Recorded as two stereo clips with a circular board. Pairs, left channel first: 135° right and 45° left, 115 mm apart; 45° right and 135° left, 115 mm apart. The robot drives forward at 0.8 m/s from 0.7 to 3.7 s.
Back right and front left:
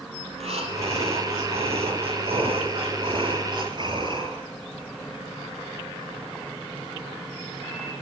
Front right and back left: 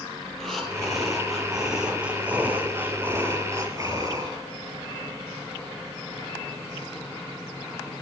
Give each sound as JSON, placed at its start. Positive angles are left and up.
{"t": 0.3, "sound": "breathing", "azimuth_deg": 40, "distance_m": 4.0}